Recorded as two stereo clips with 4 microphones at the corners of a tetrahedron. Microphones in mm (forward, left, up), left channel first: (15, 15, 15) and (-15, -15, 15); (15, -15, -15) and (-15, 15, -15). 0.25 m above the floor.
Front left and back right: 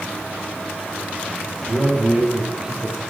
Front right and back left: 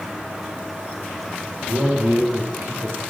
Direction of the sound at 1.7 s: 155° left.